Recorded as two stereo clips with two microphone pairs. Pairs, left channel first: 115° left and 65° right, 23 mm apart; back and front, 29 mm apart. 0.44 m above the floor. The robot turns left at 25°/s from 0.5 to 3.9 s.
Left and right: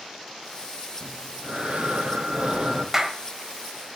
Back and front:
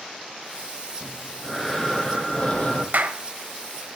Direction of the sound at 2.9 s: Straight ahead.